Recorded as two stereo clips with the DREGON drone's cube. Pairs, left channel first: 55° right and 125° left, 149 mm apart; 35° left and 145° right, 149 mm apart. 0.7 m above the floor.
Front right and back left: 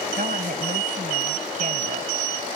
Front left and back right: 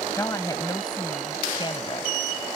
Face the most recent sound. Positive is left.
turn(degrees=85)